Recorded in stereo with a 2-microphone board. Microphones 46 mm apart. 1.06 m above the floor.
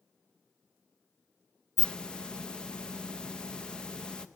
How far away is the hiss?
About 0.5 m.